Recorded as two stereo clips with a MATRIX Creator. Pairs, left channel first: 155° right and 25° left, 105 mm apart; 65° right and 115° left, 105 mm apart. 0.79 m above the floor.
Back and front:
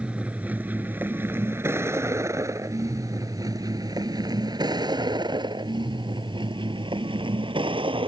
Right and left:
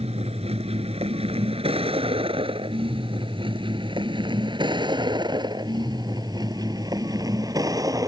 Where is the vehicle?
100° left; by 8.1 s 55° left.